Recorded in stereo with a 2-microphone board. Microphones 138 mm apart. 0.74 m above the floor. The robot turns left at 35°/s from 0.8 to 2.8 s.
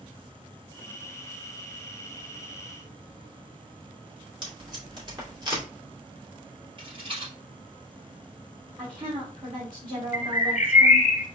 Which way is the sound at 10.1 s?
60° left (ahead or behind).